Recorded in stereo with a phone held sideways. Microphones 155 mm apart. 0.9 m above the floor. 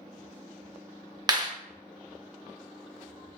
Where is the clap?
30° right (ahead or behind), 0.6 m.